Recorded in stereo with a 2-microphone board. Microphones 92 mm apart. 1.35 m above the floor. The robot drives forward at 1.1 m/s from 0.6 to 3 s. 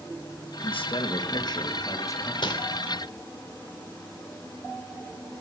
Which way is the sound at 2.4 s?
60° left (ahead or behind).